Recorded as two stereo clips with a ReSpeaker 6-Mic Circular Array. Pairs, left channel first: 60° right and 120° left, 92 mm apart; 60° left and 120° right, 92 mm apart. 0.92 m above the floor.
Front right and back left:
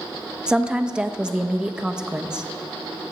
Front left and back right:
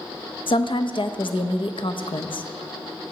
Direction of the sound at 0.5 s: 40° left.